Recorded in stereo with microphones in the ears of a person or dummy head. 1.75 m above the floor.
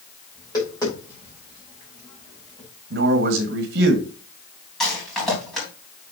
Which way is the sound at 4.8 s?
Centre (ahead or behind).